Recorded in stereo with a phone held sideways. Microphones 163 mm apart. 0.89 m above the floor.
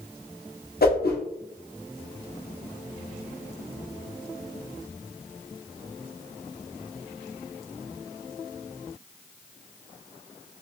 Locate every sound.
0.8 s a whoosh: 75° left (ahead or behind), 0.8 m